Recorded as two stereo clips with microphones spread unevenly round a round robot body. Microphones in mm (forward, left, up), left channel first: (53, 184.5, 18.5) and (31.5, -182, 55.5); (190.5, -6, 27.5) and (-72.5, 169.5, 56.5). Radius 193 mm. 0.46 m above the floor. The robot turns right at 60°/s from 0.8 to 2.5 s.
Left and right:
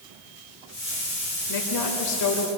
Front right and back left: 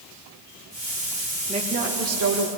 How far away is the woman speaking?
About 2 m.